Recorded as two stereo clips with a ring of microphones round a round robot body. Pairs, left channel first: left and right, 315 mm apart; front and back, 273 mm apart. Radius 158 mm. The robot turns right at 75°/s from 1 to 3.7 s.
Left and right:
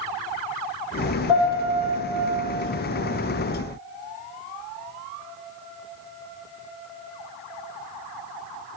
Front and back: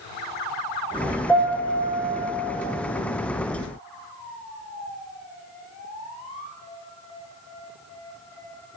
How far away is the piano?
About 3.5 m.